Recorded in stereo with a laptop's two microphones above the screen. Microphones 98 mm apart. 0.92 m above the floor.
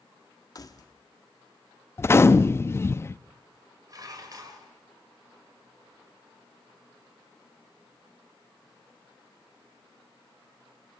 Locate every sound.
0.6 s keys jangling: 40° left (ahead or behind), 1.1 m
2.0 s a gunshot: 25° left (ahead or behind), 0.6 m
3.9 s dishes clattering: 40° right (ahead or behind), 2.5 m